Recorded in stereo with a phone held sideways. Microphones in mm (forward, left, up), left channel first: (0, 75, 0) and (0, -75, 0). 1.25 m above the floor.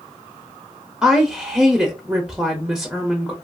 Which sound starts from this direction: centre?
A woman speaking, at 1.0 s.